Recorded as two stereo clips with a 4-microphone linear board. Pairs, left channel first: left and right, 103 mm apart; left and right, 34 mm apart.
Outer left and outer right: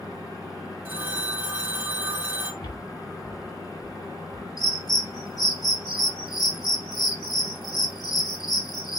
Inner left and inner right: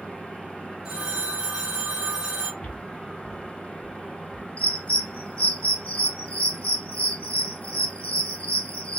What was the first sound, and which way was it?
A phone ringing, 20° right (ahead or behind).